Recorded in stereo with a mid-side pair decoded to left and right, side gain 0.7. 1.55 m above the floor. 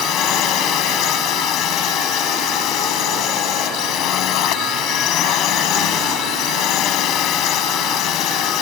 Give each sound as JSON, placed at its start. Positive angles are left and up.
{"t": 0.0, "sound": "a drone", "azimuth_deg": 55}